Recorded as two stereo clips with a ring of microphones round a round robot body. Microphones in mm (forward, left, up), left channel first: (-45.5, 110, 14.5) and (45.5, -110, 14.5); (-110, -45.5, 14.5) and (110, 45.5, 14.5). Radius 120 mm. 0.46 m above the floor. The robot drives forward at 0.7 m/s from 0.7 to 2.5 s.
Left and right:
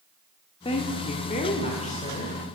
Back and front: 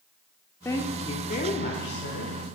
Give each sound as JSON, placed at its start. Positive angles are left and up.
{"t": 0.7, "sound": "a woman speaking", "azimuth_deg": 140, "distance_m": 0.9}